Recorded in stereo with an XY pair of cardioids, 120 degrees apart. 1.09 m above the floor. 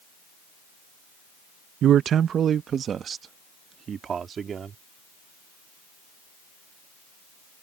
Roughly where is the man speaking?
Ahead right.